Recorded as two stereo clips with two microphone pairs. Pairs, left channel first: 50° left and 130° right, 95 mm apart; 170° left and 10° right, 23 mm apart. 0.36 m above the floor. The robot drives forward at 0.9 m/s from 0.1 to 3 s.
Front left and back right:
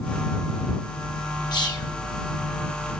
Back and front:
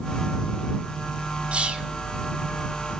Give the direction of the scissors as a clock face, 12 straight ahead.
No scissors in this recording.